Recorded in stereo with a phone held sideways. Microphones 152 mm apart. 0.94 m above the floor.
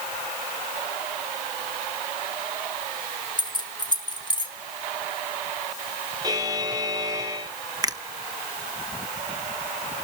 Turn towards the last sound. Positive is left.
turn(degrees=-25)  # may be behind; listen again after turning